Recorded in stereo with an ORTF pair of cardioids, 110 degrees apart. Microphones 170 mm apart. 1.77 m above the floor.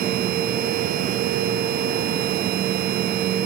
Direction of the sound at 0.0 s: 60° right.